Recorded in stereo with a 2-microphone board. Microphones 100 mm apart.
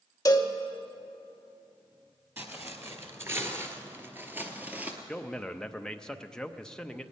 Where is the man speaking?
5° left (ahead or behind), 0.6 m.